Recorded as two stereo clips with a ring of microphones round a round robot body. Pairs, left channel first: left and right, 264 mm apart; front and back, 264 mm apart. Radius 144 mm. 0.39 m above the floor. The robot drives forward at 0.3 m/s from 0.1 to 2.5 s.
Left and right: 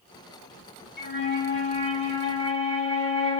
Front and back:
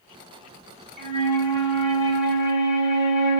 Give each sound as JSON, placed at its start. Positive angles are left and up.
{"t": 1.0, "sound": "a flute", "azimuth_deg": 135, "distance_m": 1.3}